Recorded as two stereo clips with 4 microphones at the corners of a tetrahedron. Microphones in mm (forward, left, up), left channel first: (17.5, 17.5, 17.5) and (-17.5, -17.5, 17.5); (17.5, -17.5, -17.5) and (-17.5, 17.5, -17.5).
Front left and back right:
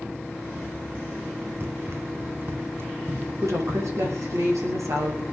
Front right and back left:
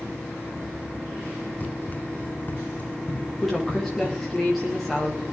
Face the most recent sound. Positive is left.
turn(degrees=-130)